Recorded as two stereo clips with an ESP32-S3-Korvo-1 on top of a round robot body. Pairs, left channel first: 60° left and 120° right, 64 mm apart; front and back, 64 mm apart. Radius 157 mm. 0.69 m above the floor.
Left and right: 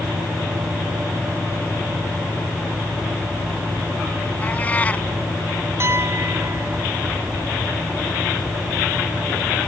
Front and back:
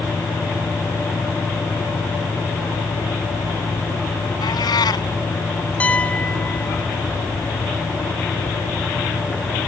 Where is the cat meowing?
10° right.